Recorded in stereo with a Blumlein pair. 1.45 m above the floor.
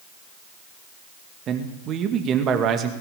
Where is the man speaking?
30° right, 2.5 m.